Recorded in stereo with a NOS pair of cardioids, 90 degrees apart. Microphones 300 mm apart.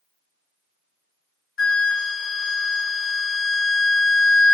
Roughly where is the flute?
Ahead left.